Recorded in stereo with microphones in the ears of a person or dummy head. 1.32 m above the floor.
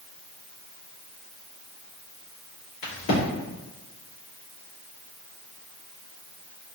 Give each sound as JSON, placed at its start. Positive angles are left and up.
{"t": 2.8, "sound": "a crack", "side_deg": 65, "distance_m": 1.9}